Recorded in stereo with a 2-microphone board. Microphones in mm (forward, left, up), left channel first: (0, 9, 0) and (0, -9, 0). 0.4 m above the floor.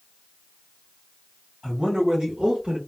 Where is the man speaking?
60° right (ahead or behind), 1.8 m; by 2.8 s 40° right (ahead or behind), 1.2 m.